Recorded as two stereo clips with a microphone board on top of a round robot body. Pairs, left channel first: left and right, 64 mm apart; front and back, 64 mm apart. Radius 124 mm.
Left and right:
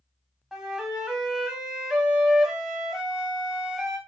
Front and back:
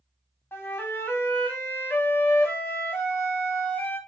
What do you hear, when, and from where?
0.5 s a flute: 5° right, 1.1 m